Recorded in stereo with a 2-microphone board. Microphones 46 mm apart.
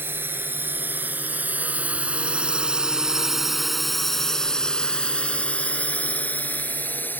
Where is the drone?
55° right (ahead or behind); by 7.2 s 45° left (ahead or behind).